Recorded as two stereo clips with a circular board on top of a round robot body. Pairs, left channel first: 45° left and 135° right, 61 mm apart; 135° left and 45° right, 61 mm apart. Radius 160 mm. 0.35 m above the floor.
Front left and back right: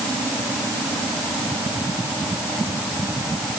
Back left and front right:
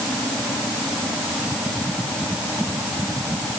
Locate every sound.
Only background noise.